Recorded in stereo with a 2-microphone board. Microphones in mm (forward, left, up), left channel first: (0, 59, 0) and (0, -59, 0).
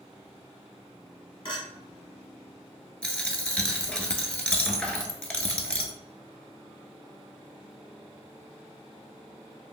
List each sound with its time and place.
1.4 s a clink: 45° left (ahead or behind), 0.9 m
3.0 s a dropped coin: 10° left (ahead or behind), 0.6 m